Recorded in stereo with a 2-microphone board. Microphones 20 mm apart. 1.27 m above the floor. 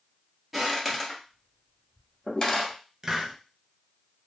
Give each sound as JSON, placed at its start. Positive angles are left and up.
{"t": 0.5, "sound": "footsteps", "side_deg": -10, "distance_m": 1.4}
{"t": 3.0, "sound": "a hiss", "side_deg": -20, "distance_m": 0.5}